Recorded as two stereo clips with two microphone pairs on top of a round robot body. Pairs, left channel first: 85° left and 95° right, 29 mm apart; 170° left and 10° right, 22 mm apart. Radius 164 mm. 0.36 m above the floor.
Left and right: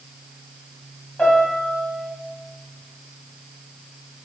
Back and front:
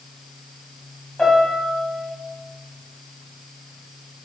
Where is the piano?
115° left, 1.6 m.